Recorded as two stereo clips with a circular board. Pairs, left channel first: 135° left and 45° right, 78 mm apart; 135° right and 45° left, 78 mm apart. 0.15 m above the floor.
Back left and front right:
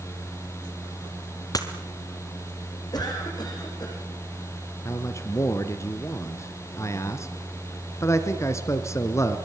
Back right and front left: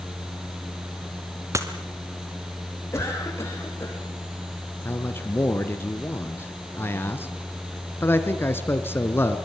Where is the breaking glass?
95° left, 2 m.